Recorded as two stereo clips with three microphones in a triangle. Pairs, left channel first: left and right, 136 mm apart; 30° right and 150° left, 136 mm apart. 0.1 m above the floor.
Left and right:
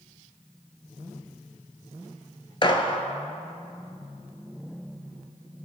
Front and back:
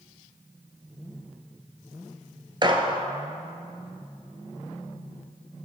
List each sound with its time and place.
2.6 s a gunshot: 115° left, 0.6 m